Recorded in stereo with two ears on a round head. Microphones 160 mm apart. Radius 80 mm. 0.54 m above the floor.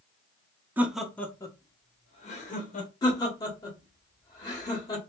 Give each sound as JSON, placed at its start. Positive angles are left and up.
{"t": 0.8, "sound": "laughter", "side_deg": -10, "distance_m": 0.8}
{"t": 3.0, "sound": "laughter", "side_deg": 20, "distance_m": 1.4}